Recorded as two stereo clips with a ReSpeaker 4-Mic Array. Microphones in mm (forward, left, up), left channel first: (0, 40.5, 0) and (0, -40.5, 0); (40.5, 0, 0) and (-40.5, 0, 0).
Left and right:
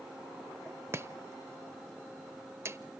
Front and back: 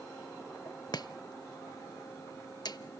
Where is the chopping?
30° right, 0.6 m.